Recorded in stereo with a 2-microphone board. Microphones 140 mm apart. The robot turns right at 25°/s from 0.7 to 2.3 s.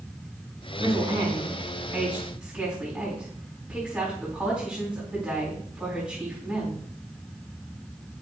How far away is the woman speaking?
About 4 m.